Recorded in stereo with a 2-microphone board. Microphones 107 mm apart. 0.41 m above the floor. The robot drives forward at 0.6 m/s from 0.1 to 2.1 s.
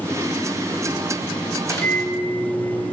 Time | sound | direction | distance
1.6 | a microwave | 30° left (ahead or behind) | 1.4 m